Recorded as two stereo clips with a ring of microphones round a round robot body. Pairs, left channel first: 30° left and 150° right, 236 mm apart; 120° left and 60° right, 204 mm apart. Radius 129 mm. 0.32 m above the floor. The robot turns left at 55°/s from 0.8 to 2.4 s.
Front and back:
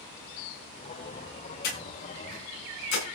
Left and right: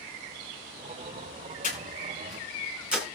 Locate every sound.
1.6 s breathing: 70° left, 7.5 m; by 3.0 s 25° left, 7.5 m